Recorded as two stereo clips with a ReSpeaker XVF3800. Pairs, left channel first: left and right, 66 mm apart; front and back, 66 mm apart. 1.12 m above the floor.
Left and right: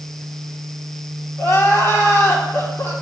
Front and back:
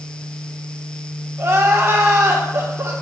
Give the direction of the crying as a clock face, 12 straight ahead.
8 o'clock.